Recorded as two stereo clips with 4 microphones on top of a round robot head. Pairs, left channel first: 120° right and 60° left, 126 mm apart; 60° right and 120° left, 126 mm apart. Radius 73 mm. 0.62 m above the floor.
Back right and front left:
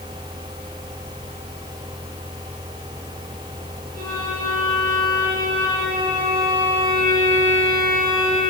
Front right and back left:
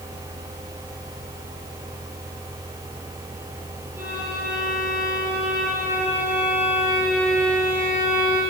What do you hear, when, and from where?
4.0 s a violin: 45° left, 9.5 m